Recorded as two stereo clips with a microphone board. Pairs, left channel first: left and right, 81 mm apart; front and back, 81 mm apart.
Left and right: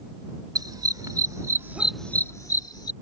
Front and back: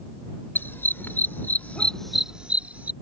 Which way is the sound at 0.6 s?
60° right.